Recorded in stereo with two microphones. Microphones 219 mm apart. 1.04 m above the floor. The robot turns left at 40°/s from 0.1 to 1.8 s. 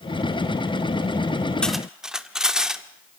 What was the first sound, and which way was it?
Cutlery clinking, 5° left (ahead or behind).